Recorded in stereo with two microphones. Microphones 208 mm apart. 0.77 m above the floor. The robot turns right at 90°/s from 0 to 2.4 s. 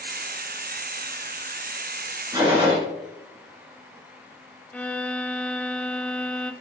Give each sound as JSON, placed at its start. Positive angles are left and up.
{"t": 2.3, "sound": "a gunshot", "side_deg": -15, "distance_m": 2.5}
{"t": 4.7, "sound": "a violin", "side_deg": 5, "distance_m": 0.6}